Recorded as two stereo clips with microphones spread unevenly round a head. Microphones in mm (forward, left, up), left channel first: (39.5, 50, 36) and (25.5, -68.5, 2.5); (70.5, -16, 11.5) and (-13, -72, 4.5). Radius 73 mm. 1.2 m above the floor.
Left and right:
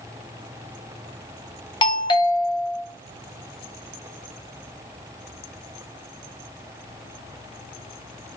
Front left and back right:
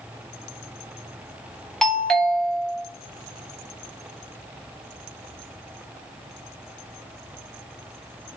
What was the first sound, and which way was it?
A doorbell, 125° left.